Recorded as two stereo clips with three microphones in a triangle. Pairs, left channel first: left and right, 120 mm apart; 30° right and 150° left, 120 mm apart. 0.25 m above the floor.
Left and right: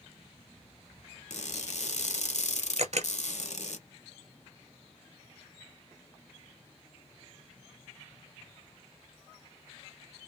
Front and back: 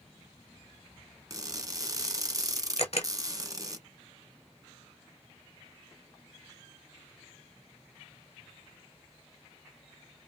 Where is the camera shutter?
65° right, 0.8 m.